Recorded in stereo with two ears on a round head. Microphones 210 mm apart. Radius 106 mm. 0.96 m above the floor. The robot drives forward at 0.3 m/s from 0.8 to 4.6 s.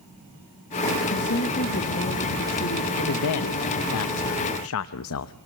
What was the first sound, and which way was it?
A woman speaking, 50° left (ahead or behind).